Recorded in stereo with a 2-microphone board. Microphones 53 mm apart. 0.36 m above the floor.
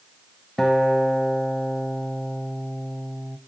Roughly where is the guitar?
Centre.